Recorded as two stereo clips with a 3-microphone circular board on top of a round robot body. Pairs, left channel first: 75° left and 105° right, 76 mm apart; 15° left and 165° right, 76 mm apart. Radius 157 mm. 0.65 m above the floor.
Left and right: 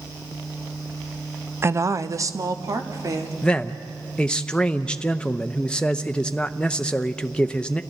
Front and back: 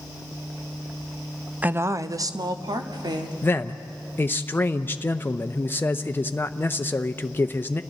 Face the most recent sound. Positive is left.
turn(degrees=10)